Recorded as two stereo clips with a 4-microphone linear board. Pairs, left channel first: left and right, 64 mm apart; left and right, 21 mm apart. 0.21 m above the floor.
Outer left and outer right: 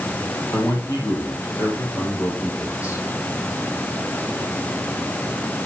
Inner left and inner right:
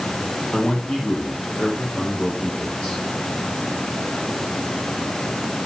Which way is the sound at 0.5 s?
55° left (ahead or behind).